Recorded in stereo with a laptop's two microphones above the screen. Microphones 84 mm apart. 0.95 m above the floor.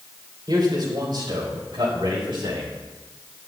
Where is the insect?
I don't hear an insect.